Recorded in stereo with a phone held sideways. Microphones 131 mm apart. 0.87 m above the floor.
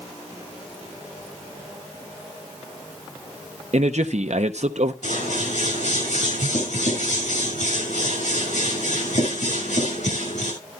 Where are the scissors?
70° left (ahead or behind), 6 m.